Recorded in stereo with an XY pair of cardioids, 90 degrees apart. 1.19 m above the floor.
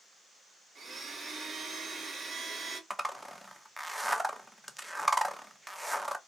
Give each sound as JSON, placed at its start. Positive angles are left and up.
{"t": 0.8, "sound": "a blender", "azimuth_deg": -45, "distance_m": 1.1}
{"t": 2.9, "sound": "a zipper", "azimuth_deg": -5, "distance_m": 0.6}